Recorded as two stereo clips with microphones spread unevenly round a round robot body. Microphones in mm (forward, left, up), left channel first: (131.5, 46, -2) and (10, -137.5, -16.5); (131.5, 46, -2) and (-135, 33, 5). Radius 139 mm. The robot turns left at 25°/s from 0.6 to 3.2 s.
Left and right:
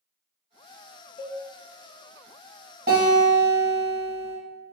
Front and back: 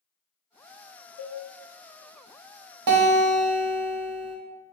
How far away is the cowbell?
About 0.6 m.